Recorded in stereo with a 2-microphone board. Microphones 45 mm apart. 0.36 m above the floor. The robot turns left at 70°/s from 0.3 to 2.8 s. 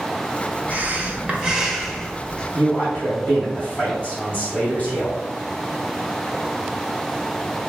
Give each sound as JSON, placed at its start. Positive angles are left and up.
{"t": 0.7, "sound": "breathing", "azimuth_deg": -100, "distance_m": 0.5}
{"t": 2.5, "sound": "a man speaking", "side_deg": 35, "distance_m": 1.5}